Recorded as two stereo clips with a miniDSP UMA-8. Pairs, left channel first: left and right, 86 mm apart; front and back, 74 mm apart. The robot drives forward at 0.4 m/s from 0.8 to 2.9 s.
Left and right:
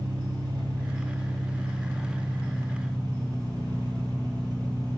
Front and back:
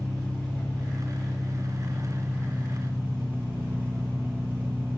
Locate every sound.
0.0 s an engine running: 70° right, 1.1 m; by 5.0 s 120° right, 1.2 m